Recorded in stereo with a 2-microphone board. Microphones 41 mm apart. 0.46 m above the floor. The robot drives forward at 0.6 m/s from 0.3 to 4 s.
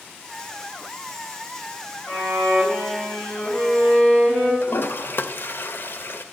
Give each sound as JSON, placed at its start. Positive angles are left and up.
{"t": 2.1, "sound": "a violin", "side_deg": 30, "distance_m": 3.0}
{"t": 4.6, "sound": "a toilet flushing", "side_deg": 60, "distance_m": 0.5}